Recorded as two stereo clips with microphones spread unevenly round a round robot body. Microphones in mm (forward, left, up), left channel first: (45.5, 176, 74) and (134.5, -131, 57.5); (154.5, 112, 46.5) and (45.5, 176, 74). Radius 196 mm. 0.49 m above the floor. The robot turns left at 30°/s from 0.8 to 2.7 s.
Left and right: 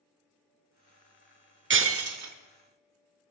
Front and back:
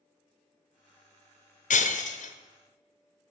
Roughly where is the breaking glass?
Ahead.